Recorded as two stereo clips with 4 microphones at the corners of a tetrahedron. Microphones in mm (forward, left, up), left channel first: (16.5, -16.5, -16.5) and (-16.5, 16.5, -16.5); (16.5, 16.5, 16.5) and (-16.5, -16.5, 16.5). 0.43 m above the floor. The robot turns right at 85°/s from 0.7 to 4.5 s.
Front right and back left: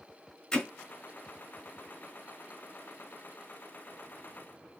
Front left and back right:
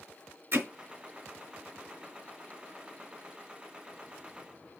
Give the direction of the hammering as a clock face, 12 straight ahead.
4 o'clock.